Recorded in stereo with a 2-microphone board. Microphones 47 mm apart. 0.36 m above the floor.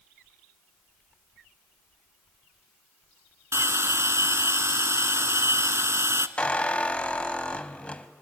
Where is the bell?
75° right (ahead or behind), 0.7 m.